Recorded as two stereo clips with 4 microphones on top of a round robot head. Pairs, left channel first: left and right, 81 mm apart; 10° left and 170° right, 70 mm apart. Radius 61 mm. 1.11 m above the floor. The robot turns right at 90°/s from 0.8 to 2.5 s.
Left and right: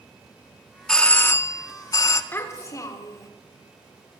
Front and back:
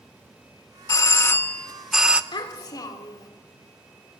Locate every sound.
0.9 s a doorbell: 10° left, 0.9 m; by 2.2 s 125° left, 0.9 m
2.3 s a child speaking: 25° left, 3 m; by 3.3 s 40° left, 3 m